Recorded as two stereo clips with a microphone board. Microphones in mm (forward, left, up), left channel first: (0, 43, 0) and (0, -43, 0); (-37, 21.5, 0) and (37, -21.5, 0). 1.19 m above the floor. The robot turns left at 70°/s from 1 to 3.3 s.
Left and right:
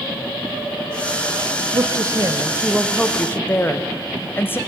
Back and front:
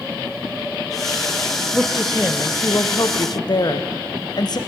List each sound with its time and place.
1.7 s a woman speaking: 100° right, 0.6 m; by 4.6 s 150° left, 0.6 m